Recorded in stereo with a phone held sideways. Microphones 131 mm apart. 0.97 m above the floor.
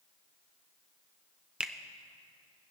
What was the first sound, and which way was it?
A finger snap, 5° right (ahead or behind).